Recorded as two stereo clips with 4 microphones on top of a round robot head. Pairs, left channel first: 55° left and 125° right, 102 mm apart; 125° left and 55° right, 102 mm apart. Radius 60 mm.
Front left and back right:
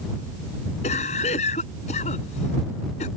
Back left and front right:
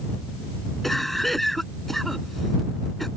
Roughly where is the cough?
Ahead left.